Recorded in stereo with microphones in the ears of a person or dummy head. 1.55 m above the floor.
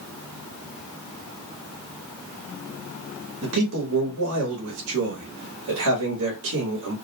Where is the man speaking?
80° right, 1.0 m.